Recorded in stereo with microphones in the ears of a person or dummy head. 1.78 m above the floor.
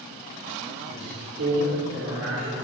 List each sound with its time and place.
0.9 s a man speaking: 70° right (ahead or behind), 6 m